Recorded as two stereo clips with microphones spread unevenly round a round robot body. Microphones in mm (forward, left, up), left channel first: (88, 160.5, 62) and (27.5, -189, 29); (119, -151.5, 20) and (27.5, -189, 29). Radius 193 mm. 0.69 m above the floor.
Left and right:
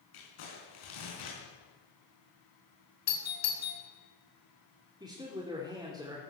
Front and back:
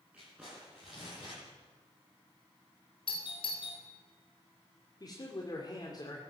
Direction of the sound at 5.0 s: 25° right.